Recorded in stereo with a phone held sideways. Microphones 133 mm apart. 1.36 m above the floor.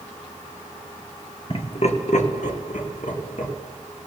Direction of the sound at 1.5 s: 45° left (ahead or behind).